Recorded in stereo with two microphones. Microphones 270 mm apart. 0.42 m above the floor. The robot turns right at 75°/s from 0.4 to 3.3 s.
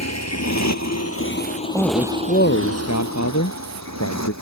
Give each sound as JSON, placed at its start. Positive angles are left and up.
{"t": 0.0, "sound": "a motorcycle", "side_deg": 75}
{"t": 1.7, "sound": "a man speaking", "azimuth_deg": -5}